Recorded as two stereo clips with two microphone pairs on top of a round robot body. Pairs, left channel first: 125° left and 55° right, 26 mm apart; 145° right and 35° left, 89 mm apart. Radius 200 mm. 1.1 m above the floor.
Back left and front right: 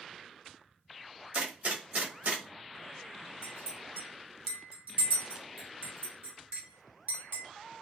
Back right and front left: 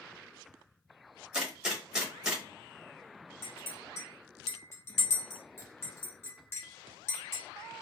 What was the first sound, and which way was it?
A gunshot, 40° right.